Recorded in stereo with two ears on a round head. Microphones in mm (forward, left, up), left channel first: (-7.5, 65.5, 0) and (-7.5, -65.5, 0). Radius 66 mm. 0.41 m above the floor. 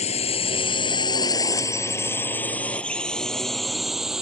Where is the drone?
45° left (ahead or behind); by 4.2 s 5° right (ahead or behind).